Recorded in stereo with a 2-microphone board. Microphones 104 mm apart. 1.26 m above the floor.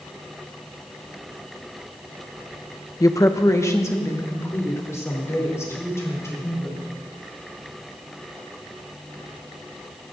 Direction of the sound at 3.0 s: 35° left (ahead or behind).